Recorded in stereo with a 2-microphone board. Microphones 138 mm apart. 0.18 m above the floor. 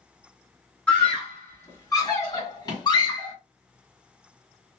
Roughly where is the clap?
No clap in this recording.